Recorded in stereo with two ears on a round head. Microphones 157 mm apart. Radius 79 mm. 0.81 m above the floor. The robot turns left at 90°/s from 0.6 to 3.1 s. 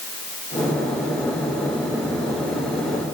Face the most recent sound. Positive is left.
No sound to turn to.